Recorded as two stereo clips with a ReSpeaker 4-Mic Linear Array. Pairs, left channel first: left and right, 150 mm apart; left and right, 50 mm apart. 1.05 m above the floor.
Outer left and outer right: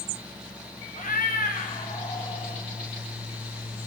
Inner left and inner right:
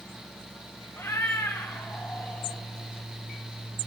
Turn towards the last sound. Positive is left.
turn(degrees=35)  # may be behind; listen again after turning